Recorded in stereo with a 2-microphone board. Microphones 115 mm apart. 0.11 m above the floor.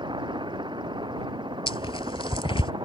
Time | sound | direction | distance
0.0 | a helicopter | 40° right (ahead or behind) | ?
1.7 | tearing paper | 50° left (ahead or behind) | ?